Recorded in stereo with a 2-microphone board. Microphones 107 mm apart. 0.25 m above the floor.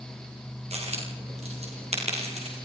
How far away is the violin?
I don't hear a violin.